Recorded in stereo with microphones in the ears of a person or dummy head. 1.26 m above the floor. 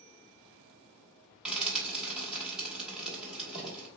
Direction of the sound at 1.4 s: Centre (ahead or behind).